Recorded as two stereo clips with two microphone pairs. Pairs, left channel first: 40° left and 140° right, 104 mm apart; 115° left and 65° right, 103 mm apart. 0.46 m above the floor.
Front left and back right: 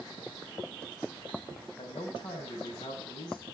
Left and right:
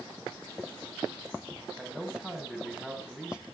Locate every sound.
1.8 s a man speaking: 15° left, 3.5 m